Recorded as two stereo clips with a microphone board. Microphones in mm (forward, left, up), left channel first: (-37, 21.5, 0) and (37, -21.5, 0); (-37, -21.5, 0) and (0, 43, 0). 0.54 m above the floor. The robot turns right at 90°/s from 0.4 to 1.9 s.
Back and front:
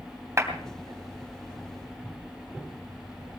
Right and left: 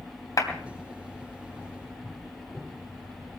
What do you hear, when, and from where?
0.4 s a clap: 90° right, 3 m; by 0.5 s 80° right, 3 m